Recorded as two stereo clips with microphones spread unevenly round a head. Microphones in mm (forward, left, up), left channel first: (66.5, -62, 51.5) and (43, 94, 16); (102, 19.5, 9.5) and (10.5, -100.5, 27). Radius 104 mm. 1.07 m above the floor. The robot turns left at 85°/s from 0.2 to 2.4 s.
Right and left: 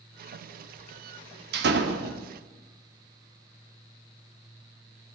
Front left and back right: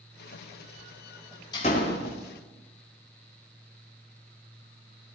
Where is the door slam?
125° left, 1.6 m; by 2.2 s 70° left, 1.6 m.